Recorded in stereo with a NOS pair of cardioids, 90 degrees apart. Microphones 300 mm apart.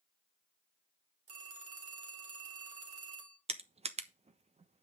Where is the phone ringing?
50° right, 3 m.